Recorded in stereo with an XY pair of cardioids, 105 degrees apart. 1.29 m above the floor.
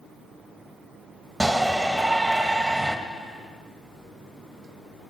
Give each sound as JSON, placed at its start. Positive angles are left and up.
{"t": 1.4, "sound": "a shout", "azimuth_deg": -15, "distance_m": 2.0}